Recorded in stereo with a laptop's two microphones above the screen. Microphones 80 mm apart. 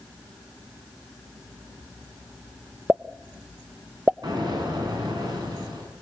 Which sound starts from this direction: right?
An explosion, at 4.2 s.